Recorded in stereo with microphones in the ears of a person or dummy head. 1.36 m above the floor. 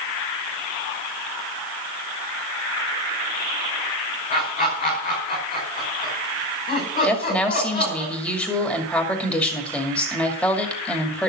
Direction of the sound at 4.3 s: 45° left (ahead or behind).